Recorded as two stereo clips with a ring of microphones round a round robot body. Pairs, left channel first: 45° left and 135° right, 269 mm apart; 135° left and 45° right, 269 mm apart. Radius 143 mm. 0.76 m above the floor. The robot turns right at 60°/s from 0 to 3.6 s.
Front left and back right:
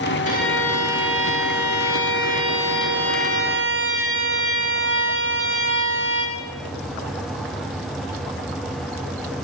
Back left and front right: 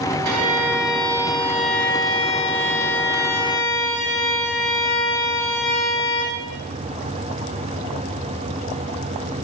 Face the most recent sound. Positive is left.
turn(degrees=180)